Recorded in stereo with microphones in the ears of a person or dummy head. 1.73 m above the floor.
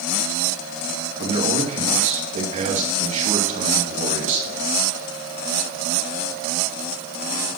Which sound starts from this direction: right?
A man speaking, at 1.2 s.